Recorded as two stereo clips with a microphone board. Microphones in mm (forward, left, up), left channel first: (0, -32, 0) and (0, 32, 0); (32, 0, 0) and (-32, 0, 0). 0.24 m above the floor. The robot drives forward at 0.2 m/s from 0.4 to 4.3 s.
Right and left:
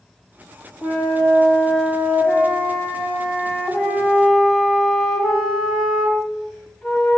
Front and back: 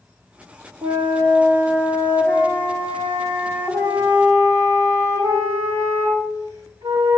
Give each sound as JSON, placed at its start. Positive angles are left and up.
{"t": 0.8, "sound": "a flute", "azimuth_deg": 180, "distance_m": 3.5}